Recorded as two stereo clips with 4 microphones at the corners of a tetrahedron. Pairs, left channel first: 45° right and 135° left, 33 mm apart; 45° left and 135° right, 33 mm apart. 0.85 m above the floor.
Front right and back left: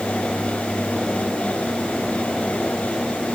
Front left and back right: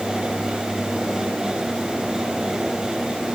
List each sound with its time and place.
Only background noise.